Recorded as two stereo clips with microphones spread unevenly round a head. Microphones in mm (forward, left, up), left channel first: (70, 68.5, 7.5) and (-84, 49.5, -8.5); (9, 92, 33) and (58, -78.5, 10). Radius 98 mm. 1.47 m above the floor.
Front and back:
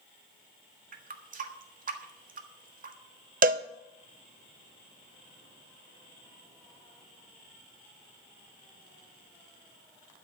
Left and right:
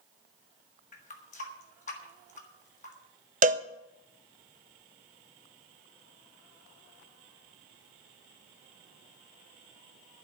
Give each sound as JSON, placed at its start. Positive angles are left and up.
{"t": 0.9, "sound": "a running tap", "azimuth_deg": 155, "distance_m": 1.6}
{"t": 3.4, "sound": "a cowbell", "azimuth_deg": -130, "distance_m": 0.6}